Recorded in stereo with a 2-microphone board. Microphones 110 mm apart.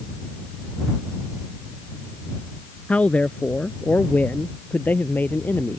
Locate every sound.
2.9 s a man speaking: 10° left (ahead or behind); by 5.8 s 20° left (ahead or behind)